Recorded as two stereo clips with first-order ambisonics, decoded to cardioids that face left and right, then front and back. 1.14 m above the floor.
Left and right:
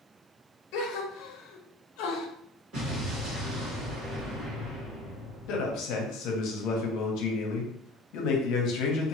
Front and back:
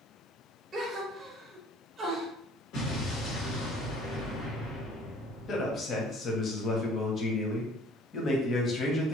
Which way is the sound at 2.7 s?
40° right.